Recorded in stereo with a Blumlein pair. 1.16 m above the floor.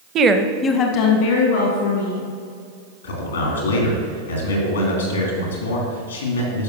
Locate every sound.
0.1 s a woman speaking: 30° right, 0.7 m; by 2.3 s 65° left, 2.5 m
3.0 s a man speaking: 70° left, 2.5 m